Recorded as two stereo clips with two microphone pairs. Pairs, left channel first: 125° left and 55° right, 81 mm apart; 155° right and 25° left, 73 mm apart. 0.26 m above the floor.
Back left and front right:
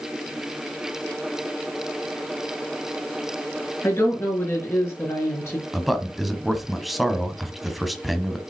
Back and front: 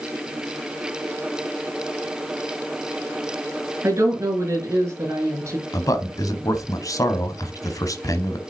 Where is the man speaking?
145° right, 1.4 m.